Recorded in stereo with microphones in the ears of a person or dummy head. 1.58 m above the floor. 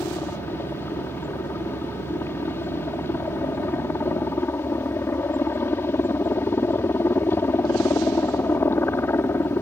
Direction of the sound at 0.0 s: 10° left (ahead or behind).